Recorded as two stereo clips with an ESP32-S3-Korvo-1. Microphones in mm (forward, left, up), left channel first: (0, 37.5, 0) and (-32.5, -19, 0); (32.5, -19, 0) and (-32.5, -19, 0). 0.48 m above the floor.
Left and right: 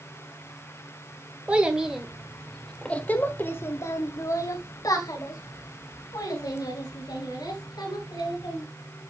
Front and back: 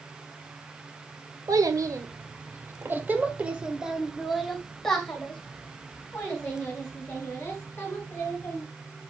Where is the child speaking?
170° left, 1.6 m; by 8.6 s 60° left, 4 m.